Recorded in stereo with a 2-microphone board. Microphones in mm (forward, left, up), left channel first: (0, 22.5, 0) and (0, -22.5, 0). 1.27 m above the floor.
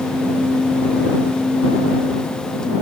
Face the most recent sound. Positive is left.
No sound to turn to.